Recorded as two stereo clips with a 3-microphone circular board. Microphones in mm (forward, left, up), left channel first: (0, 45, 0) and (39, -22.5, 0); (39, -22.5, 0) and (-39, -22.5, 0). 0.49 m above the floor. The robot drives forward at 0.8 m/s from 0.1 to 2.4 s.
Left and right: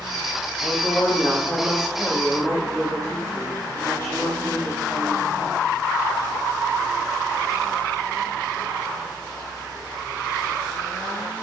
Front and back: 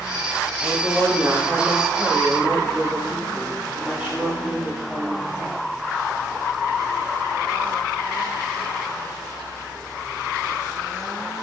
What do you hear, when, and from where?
0.6 s a woman speaking: 40° left, 1.6 m; by 5.6 s 130° left, 1.5 m